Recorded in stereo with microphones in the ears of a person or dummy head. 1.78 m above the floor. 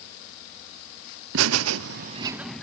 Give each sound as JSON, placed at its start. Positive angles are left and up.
{"t": 1.3, "sound": "laughter", "side_deg": -70, "distance_m": 1.2}